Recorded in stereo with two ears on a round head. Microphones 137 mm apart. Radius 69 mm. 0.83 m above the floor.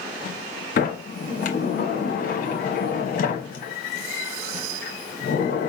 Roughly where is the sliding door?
Left.